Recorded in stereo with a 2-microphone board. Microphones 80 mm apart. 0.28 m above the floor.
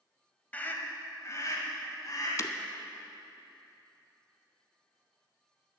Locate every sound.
0.5 s a scream: 20° left (ahead or behind), 1.2 m; by 2.3 s 50° left (ahead or behind), 1.7 m
2.4 s breaking glass: 40° left (ahead or behind), 0.6 m